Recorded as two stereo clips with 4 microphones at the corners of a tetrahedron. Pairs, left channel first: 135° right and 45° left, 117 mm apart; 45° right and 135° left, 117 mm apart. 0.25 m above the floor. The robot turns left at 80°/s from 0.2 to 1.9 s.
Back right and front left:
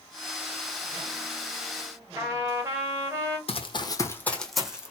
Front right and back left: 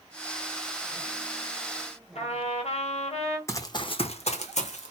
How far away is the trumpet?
About 1.1 m.